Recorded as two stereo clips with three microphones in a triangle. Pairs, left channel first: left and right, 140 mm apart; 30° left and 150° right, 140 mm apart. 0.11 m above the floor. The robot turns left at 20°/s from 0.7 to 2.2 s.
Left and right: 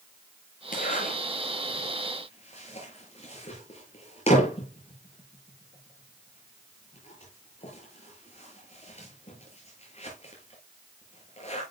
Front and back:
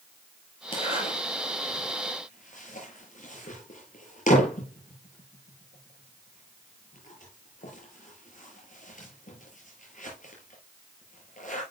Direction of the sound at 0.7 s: 85° left.